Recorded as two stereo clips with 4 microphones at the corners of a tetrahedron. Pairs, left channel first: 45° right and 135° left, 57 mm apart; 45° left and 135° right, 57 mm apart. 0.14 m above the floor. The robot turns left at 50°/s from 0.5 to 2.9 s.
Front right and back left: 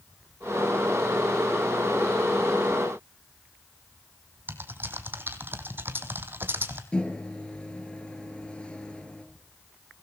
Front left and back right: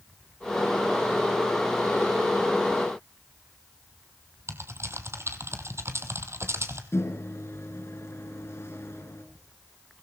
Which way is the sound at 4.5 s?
175° right.